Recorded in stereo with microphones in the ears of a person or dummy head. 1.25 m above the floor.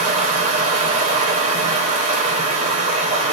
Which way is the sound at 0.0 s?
45° right (ahead or behind).